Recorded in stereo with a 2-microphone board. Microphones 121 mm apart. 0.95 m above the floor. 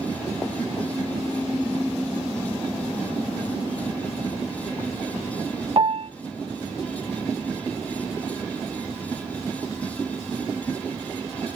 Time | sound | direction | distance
5.8 | a piano | 45° right (ahead or behind) | 0.5 m